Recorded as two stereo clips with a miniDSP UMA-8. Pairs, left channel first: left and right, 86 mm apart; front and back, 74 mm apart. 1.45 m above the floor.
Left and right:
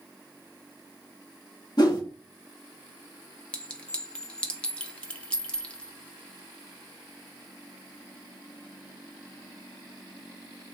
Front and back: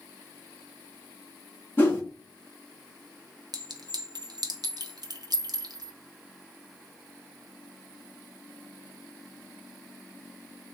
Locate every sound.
1.8 s a whoosh: 60° left, 1.4 m
3.5 s a clink: 165° left, 0.6 m